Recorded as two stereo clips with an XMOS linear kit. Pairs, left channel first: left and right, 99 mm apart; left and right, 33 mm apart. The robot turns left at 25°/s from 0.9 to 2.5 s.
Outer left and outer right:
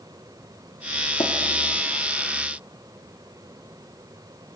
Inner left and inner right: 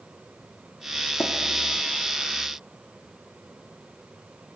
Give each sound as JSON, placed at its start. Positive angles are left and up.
{"t": 1.2, "sound": "tapping", "side_deg": 75, "distance_m": 1.4}